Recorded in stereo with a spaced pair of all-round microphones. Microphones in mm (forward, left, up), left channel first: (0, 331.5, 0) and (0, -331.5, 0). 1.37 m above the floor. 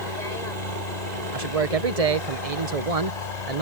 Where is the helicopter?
75° left (ahead or behind).